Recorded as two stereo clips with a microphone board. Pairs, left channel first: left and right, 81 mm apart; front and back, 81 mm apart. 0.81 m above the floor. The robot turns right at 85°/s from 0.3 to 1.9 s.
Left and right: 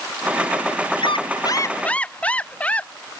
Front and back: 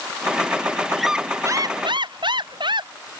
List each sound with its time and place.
1.0 s a squeak: 85° left; by 2.9 s 165° left